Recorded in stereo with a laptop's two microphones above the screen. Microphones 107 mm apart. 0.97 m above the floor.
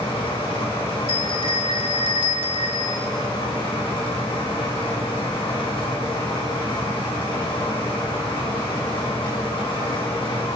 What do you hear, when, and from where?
0.0 s a fan: 55° left (ahead or behind), 3.5 m
1.1 s a bell: 60° right (ahead or behind), 1.7 m